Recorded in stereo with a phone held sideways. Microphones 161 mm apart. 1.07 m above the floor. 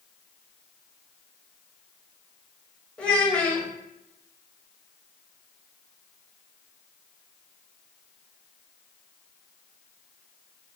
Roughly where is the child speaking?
Centre.